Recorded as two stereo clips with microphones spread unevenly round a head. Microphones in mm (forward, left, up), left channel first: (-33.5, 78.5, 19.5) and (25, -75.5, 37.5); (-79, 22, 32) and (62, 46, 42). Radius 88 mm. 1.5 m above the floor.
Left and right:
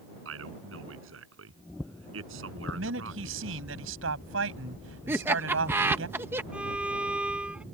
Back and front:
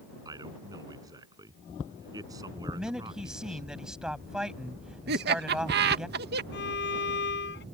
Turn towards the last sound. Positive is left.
turn(degrees=-150)